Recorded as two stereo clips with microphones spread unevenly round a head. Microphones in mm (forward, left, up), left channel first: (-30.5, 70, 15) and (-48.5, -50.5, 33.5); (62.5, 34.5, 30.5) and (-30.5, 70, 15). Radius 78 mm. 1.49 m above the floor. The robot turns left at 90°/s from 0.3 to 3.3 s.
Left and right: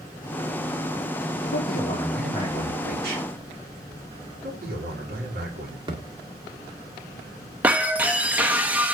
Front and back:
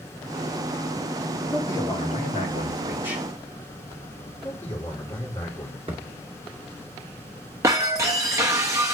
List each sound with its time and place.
1.5 s a man speaking: 55° left, 3 m; by 3.2 s 100° right, 3 m
4.4 s a man speaking: 90° right, 3.5 m
5.9 s a thud: 140° right, 1.8 m
7.6 s breaking glass: 145° right, 0.8 m